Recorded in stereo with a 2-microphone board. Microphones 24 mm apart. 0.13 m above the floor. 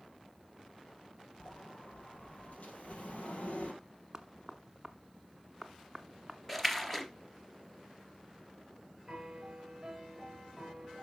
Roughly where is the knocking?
Centre.